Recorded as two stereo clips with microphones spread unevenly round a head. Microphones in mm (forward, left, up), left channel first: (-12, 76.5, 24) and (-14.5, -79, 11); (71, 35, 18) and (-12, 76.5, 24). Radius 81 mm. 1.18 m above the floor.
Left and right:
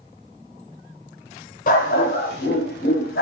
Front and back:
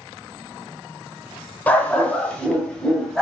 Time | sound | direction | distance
1.7 | a dog barking | 50° left | 2 m